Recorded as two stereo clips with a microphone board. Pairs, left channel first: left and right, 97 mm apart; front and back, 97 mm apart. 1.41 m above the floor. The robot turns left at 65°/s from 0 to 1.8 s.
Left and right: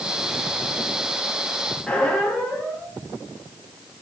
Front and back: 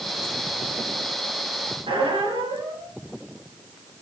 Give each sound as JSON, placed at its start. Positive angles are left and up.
{"t": 1.9, "sound": "a squeak", "azimuth_deg": 170, "distance_m": 0.9}